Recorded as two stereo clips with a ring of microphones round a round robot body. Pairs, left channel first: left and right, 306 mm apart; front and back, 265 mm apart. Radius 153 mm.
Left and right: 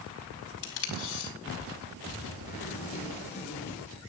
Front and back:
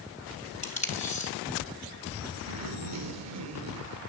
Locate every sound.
0.6 s tape being pulled: 65° left, 3.5 m
2.5 s a zipper: 160° left, 3.5 m